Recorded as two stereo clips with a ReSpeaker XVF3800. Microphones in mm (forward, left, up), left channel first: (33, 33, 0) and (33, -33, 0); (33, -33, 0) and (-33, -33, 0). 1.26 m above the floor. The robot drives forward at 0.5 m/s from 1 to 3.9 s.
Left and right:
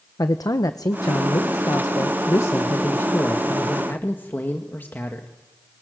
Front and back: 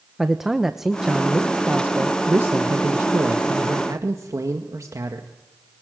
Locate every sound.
0.2 s a man speaking: 95° left, 1.1 m; by 5.3 s 145° left, 1.9 m